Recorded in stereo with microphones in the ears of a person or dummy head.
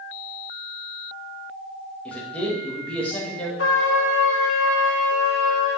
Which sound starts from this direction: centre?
A man speaking, at 2.0 s.